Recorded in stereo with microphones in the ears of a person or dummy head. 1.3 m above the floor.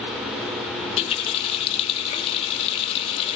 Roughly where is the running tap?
Left.